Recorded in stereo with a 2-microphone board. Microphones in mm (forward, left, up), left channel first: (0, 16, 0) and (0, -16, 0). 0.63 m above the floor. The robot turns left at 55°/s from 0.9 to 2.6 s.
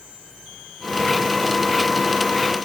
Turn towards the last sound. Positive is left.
No sound to turn to.